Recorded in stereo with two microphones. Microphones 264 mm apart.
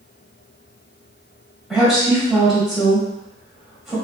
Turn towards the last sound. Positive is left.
turn(degrees=0)  # may be behind; listen again after turning